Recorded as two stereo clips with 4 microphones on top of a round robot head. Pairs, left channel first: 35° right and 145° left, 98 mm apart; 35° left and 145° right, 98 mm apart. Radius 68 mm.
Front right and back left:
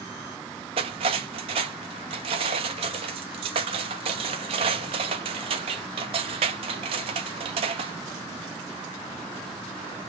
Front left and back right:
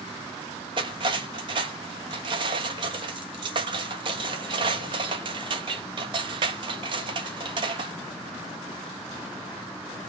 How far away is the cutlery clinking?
About 0.9 m.